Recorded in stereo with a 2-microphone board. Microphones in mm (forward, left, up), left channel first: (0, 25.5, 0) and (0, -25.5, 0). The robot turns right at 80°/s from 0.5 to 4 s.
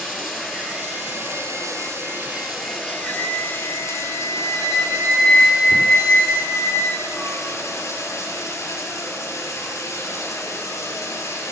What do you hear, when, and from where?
0.0 s running water: 170° right, 3 m; by 11.5 s 110° left, 3 m
3.0 s a flute: 90° left, 6 m; by 7.4 s 165° left, 6 m